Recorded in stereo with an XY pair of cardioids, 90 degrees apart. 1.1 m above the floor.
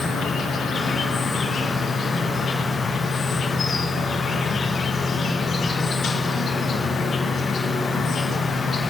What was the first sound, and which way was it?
An insect, 60° left.